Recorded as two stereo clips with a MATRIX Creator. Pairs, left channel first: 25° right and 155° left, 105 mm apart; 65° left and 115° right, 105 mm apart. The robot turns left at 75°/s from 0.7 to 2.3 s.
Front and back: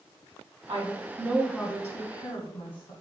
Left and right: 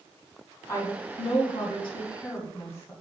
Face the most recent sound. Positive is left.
turn(degrees=5)